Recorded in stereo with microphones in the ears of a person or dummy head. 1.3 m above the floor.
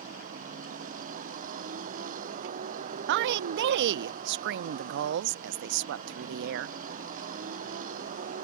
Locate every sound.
0.0 s a vehicle: 45° right (ahead or behind)
3.1 s a woman speaking: 65° right (ahead or behind)